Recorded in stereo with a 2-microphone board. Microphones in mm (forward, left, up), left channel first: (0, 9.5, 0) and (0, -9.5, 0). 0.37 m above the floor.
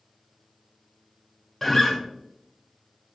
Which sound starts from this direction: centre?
A guitar, at 1.6 s.